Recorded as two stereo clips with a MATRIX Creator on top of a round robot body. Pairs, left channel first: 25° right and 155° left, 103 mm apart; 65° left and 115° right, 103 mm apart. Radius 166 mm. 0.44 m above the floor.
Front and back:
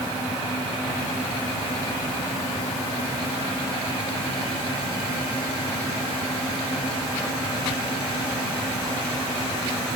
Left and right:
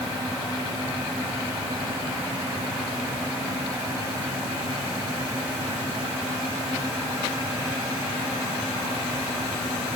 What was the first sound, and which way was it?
Only background noise.